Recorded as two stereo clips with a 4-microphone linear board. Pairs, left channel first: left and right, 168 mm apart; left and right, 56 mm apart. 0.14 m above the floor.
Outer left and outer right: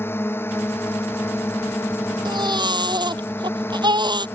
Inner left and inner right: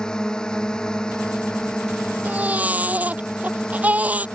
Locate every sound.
0.0 s a drone: 15° left (ahead or behind)
2.2 s a baby crying: 25° right (ahead or behind)